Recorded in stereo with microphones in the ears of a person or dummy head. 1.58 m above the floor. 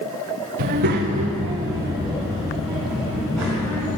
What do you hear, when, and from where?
0.6 s a child speaking: 50° right (ahead or behind), 0.6 m; by 3.9 s centre (ahead or behind), 2 m